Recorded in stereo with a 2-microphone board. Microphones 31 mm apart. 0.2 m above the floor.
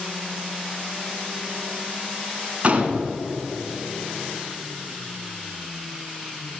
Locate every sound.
2.6 s a gunshot: 45° right (ahead or behind), 1.5 m